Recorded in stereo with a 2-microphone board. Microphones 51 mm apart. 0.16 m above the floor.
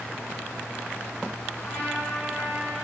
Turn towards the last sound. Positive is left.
turn(degrees=35)  # may be behind; listen again after turning